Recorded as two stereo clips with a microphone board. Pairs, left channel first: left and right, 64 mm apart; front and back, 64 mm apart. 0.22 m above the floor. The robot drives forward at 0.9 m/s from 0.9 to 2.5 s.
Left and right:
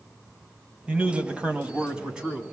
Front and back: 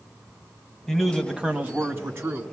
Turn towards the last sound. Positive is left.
turn(degrees=-165)